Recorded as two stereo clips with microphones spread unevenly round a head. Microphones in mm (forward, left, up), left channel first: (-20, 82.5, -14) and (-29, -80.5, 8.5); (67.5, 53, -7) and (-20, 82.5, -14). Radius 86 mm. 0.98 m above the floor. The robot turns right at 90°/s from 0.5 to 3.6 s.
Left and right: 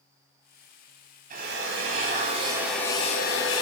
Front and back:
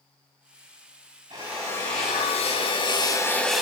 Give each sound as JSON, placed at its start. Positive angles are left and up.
{"t": 1.3, "sound": "a drill", "azimuth_deg": -130, "distance_m": 4.5}